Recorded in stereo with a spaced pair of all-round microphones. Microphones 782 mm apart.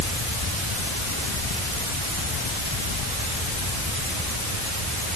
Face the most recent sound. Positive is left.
No sound to turn to.